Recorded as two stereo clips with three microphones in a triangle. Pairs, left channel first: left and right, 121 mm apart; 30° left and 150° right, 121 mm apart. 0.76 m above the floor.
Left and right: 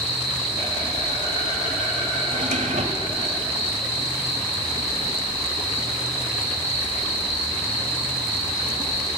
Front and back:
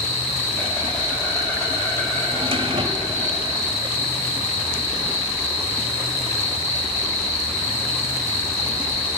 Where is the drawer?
105° right, 1.6 m.